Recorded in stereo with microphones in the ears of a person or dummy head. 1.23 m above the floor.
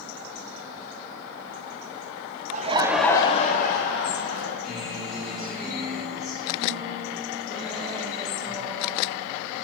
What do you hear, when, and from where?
2.5 s laughter: 45° right (ahead or behind), 0.6 m; by 4.5 s 65° left (ahead or behind), 1.4 m
4.6 s a guitar: centre (ahead or behind), 3 m